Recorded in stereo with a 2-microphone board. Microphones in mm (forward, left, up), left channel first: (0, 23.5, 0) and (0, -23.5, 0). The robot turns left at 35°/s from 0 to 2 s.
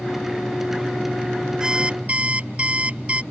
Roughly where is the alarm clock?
Centre.